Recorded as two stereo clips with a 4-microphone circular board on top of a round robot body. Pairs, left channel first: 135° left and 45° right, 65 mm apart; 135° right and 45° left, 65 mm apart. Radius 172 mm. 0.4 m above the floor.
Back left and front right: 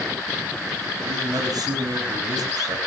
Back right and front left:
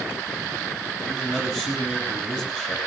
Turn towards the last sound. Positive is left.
turn(degrees=-55)